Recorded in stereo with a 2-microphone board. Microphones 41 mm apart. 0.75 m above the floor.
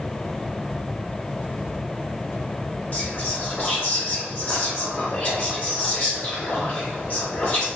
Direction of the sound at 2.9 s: 40° left (ahead or behind).